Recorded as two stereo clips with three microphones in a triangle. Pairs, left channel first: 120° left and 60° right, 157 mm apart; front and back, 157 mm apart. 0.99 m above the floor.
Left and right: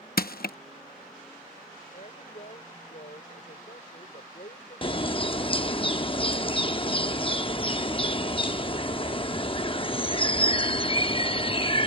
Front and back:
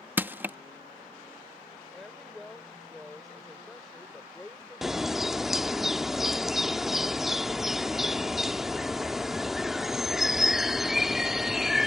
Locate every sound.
0.2 s crushing: 105° left
1.9 s a woman speaking: 90° left
4.8 s a bird: 95° left